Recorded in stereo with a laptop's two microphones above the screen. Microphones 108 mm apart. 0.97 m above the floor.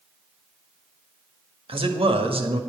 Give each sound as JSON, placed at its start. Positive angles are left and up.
{"t": 1.7, "sound": "a man speaking", "side_deg": -60, "distance_m": 1.7}